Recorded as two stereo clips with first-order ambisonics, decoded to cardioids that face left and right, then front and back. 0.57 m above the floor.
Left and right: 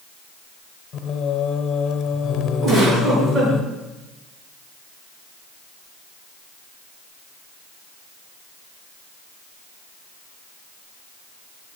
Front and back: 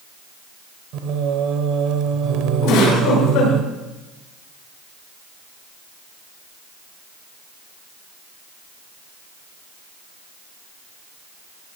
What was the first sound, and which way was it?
Singing, 150° left.